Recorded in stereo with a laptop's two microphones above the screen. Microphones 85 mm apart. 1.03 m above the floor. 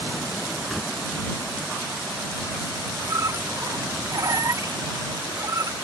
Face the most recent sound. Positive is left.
turn(degrees=-45)  # may be behind; listen again after turning